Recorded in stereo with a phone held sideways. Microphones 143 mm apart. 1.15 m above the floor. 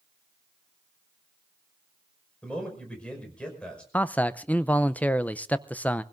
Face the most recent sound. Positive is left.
turn(degrees=10)  # may be behind; listen again after turning